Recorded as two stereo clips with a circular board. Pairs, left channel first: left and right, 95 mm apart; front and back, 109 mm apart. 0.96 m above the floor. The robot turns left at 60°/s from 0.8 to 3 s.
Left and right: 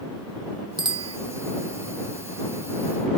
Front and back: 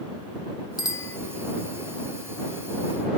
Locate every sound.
0.8 s a bicycle bell: 55° right; by 1.2 s 75° right